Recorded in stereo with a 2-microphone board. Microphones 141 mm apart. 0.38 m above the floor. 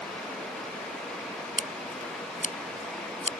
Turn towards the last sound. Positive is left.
turn(degrees=75)  # may be behind; listen again after turning